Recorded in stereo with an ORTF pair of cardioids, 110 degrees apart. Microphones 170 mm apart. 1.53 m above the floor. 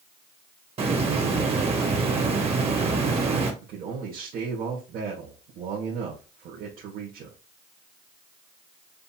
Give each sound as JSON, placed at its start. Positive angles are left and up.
{"t": 0.8, "sound": "a hiss", "azimuth_deg": -35, "distance_m": 1.9}
{"t": 3.6, "sound": "a man speaking", "azimuth_deg": -60, "distance_m": 1.7}